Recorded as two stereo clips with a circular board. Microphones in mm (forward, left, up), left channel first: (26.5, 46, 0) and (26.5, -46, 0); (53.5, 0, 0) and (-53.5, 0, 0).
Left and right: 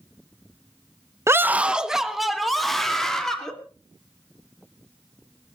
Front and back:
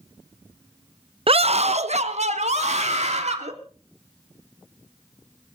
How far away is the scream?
About 0.6 m.